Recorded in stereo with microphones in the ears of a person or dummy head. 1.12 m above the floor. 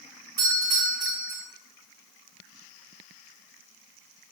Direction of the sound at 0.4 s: 50° right (ahead or behind).